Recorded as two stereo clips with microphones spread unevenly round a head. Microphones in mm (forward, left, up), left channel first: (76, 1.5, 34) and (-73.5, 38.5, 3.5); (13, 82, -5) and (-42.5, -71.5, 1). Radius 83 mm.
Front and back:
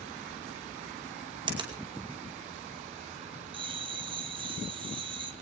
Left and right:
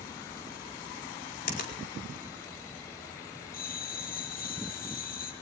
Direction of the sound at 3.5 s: 105° left.